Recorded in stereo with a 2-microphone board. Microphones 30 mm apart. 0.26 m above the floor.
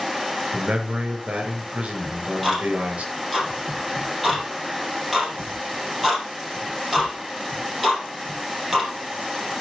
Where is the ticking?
Centre (ahead or behind), 5 m.